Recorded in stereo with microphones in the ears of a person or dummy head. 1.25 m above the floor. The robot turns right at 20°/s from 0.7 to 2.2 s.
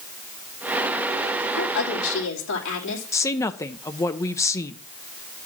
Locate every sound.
1.6 s a woman speaking: 85° left, 3 m; by 3.0 s 70° left (ahead or behind), 3 m
3.1 s a woman speaking: 15° left (ahead or behind), 0.7 m